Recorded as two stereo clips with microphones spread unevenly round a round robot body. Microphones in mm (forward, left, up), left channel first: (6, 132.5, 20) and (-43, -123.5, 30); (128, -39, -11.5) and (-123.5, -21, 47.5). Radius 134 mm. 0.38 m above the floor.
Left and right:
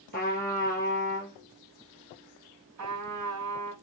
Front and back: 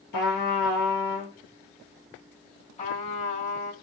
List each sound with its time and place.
0.1 s a trumpet: 20° left, 1.8 m
2.8 s a trumpet: 65° right, 1.3 m